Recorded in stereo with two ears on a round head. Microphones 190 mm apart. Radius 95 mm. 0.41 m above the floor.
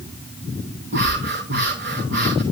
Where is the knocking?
I don't hear knocking.